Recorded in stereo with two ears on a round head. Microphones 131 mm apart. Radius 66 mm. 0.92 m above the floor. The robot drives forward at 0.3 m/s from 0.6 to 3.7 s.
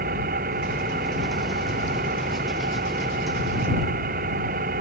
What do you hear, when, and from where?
0.0 s an engine running: 65° right (ahead or behind)